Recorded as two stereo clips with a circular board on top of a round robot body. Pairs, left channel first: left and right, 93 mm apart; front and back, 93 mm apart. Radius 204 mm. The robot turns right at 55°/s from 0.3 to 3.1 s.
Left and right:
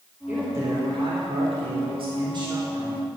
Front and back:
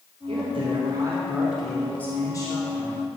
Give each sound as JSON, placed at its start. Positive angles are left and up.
{"t": 0.3, "sound": "a man speaking", "azimuth_deg": -165, "distance_m": 3.5}